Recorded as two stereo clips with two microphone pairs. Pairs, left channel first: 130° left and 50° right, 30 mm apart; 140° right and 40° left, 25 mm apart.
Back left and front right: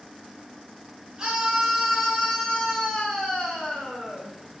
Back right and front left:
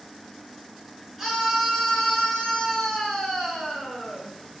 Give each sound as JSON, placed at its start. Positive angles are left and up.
{"t": 1.2, "sound": "a scream", "azimuth_deg": -55, "distance_m": 0.8}